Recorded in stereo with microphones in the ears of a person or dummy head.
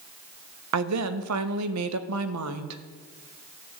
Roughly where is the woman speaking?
Right.